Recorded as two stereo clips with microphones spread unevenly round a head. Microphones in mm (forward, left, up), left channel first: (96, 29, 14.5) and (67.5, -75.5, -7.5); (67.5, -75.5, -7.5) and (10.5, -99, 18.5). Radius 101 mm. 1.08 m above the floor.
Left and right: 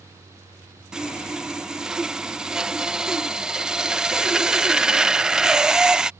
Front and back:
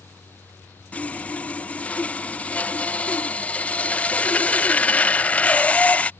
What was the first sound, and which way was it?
Sawing, 30° right.